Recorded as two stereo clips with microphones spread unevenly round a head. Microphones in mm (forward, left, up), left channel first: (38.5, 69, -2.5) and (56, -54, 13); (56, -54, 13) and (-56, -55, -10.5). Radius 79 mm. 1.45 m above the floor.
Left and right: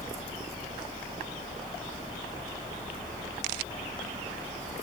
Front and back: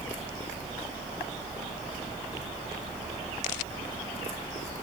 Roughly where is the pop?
No pop in this recording.